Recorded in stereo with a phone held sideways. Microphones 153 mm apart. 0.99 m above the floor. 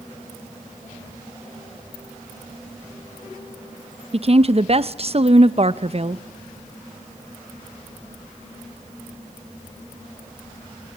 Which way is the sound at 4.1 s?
45° right (ahead or behind).